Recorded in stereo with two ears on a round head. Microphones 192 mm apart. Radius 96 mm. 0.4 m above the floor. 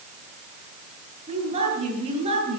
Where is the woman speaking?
30° right (ahead or behind), 7.5 m.